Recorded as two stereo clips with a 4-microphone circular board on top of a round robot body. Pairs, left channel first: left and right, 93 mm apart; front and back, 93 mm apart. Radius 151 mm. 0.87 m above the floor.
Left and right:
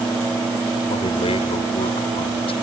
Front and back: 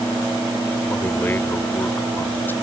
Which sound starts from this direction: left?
A man speaking, at 0.9 s.